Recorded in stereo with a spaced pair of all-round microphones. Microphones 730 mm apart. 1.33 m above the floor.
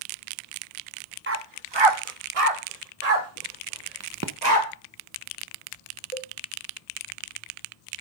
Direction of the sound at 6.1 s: 50° right (ahead or behind).